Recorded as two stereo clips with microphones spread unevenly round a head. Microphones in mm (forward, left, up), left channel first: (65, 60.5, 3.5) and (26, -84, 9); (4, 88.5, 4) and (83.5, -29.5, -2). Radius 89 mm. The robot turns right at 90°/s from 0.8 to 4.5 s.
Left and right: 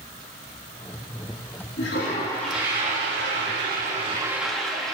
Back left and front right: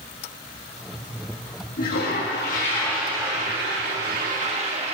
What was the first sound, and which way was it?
A toilet flushing, 100° left.